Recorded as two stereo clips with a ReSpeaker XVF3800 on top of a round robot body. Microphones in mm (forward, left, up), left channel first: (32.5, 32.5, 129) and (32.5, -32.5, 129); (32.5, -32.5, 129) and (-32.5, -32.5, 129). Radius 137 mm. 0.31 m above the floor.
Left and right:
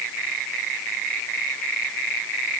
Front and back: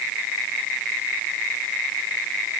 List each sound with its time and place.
Only background noise.